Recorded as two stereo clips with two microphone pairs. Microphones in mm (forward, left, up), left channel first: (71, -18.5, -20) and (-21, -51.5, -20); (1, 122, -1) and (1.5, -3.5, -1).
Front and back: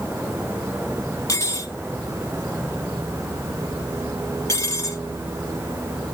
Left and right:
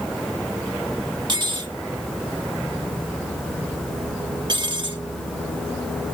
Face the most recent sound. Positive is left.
turn(degrees=-40)